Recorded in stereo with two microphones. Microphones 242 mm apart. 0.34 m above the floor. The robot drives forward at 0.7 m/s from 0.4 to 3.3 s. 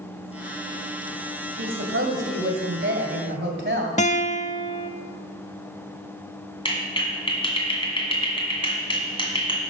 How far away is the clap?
About 1.9 m.